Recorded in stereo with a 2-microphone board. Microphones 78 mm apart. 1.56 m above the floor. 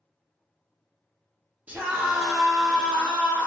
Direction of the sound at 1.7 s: 20° right (ahead or behind).